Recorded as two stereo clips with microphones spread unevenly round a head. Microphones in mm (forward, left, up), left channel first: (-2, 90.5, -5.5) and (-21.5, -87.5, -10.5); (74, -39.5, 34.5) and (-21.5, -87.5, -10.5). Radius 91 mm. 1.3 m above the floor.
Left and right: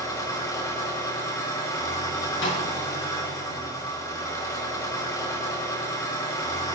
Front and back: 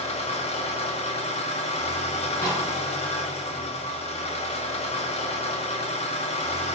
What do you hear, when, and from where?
0.0 s an engine running: 10° left, 2.5 m
2.4 s a snare drum: 105° left, 8 m